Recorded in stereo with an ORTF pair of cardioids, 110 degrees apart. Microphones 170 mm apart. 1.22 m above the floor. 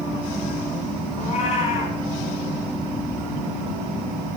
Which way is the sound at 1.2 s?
40° left.